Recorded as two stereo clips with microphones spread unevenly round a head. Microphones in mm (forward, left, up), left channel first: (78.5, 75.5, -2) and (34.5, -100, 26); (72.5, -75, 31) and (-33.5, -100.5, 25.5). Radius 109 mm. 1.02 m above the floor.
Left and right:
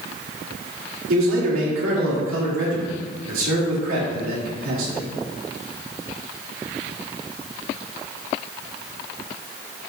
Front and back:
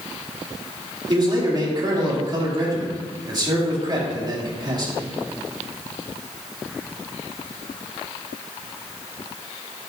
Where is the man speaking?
120° right, 3 m.